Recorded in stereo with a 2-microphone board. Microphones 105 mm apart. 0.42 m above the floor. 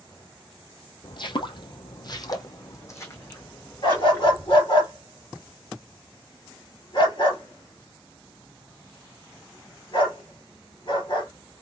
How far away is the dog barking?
About 2 m.